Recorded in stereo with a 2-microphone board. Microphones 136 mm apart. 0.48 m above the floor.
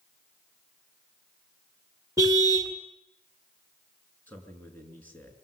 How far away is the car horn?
About 2.5 m.